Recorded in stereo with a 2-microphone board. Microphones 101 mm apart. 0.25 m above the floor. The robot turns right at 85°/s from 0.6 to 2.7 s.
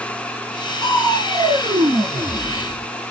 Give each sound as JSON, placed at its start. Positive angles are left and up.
{"t": 0.8, "sound": "crushing", "azimuth_deg": -145, "distance_m": 0.6}